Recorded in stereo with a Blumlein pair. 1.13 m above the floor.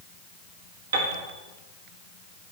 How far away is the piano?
About 1.7 m.